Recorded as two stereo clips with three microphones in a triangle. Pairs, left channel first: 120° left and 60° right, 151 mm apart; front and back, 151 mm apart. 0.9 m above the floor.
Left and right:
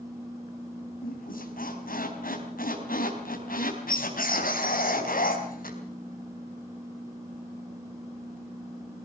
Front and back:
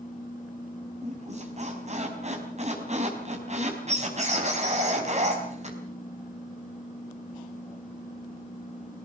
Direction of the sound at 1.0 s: 140° left.